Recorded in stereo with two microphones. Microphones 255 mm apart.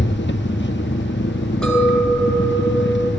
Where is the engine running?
45° left (ahead or behind), 0.7 m.